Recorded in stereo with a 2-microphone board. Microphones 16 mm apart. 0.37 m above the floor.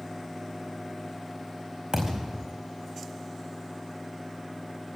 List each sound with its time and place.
1.9 s a thud: 55° right (ahead or behind), 4.5 m